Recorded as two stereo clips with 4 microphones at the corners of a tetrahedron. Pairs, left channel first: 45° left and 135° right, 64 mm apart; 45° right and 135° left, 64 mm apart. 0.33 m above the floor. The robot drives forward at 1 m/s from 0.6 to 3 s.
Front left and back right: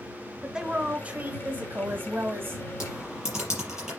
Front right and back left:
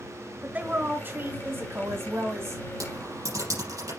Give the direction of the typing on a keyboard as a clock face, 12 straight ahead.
7 o'clock.